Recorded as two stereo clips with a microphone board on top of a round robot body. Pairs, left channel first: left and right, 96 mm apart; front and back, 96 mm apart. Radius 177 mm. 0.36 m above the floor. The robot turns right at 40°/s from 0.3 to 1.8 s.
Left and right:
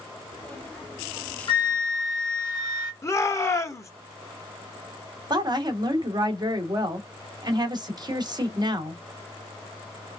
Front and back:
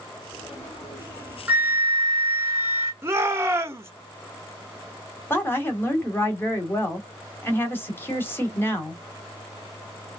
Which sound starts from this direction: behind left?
A shout, at 3.0 s.